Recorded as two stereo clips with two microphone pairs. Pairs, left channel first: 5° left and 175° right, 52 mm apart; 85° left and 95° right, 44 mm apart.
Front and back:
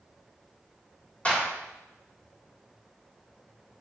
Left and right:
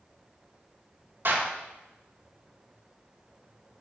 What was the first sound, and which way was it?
A clap, 55° right.